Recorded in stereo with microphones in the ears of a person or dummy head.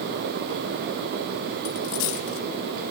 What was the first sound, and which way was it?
A dropped coin, 70° left (ahead or behind).